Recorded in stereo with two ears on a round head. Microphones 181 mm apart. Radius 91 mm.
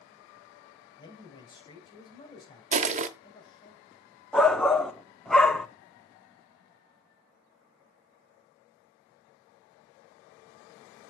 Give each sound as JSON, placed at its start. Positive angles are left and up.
{"t": 1.0, "sound": "a man speaking", "side_deg": 20, "distance_m": 3.5}
{"t": 2.7, "sound": "crushing", "side_deg": -35, "distance_m": 0.9}
{"t": 4.3, "sound": "a shout", "side_deg": 5, "distance_m": 1.0}